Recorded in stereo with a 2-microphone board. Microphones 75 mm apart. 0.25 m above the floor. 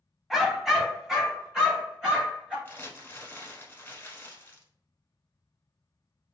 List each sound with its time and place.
0.3 s a dog barking: centre (ahead or behind), 0.6 m; by 2.5 s 5° right (ahead or behind), 1.7 m
2.6 s crumpling: 25° left (ahead or behind), 0.8 m